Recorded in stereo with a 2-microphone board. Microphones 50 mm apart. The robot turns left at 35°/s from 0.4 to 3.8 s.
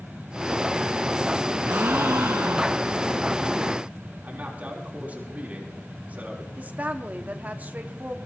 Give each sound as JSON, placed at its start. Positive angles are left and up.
{"t": 1.6, "sound": "a gasp", "azimuth_deg": -55, "distance_m": 2.0}
{"t": 4.2, "sound": "a man speaking", "side_deg": -35, "distance_m": 5.0}
{"t": 6.6, "sound": "a woman speaking", "side_deg": -35, "distance_m": 1.3}